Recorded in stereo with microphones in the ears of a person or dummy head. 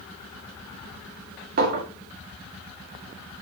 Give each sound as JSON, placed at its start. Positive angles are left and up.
{"t": 1.6, "sound": "a clink", "side_deg": -50, "distance_m": 1.9}